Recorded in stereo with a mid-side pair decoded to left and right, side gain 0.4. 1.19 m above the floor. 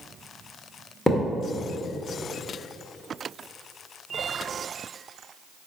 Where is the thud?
15° left, 1.8 m.